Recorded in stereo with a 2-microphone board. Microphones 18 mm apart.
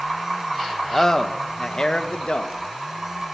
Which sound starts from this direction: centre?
A man speaking, at 0.9 s.